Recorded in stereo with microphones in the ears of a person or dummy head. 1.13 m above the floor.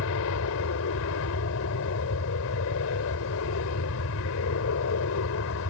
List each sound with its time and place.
0.0 s an aircraft: 70° left (ahead or behind)